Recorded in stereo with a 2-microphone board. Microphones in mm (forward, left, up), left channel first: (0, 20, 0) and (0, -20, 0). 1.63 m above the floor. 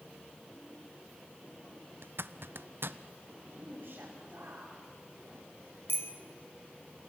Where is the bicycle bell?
75° left (ahead or behind), 2.5 m.